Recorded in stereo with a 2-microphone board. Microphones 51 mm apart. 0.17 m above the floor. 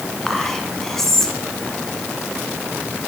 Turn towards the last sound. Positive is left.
turn(degrees=10)  # may be behind; listen again after turning